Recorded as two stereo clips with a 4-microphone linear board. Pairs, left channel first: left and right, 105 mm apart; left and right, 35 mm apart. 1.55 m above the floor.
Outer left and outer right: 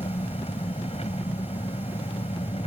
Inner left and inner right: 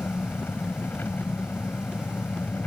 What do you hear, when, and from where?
0.0 s an engine running: 80° left